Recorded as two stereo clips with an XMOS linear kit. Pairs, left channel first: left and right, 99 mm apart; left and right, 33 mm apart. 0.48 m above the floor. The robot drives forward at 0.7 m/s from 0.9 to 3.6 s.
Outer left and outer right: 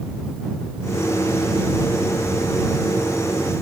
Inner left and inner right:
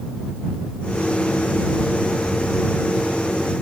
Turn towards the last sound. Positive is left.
No sound to turn to.